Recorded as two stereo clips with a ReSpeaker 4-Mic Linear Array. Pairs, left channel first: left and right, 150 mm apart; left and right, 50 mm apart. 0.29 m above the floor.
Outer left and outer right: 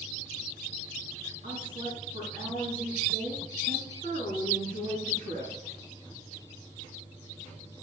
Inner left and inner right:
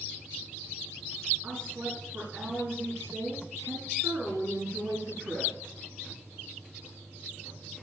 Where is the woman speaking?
50° right (ahead or behind), 3.5 m.